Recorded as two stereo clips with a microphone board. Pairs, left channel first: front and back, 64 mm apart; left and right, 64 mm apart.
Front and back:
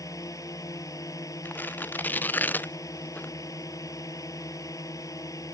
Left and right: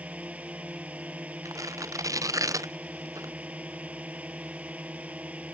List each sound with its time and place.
0.0 s a drone: 25° right
1.4 s tearing paper: 60° right